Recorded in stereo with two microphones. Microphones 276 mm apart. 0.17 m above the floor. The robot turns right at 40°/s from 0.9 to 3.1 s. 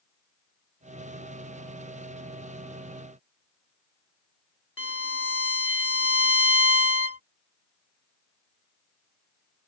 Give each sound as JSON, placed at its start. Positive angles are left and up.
{"t": 4.8, "sound": "a violin", "side_deg": 50}